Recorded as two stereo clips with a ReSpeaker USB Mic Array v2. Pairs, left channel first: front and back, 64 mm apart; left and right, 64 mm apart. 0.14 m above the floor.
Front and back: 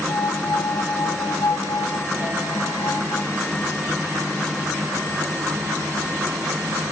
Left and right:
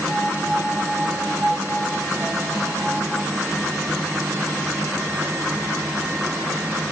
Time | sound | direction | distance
0.1 | a piano | 20° right | 0.9 m